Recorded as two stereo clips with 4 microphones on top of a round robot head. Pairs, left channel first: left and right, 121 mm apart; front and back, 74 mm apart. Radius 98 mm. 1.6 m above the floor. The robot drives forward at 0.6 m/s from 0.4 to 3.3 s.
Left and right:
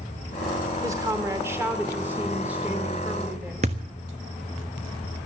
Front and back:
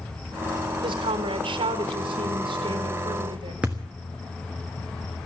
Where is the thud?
100° right, 1.1 m.